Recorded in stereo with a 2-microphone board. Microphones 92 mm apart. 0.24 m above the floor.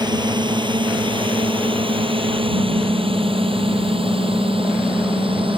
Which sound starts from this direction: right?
A drone, at 0.0 s.